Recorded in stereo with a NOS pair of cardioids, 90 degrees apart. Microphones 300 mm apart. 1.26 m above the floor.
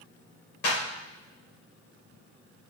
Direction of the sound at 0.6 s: 65° left.